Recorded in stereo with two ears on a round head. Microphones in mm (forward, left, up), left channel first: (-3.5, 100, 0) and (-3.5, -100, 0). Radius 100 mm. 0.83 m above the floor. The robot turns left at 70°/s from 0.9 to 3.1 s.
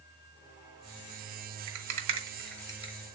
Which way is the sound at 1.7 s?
60° right (ahead or behind).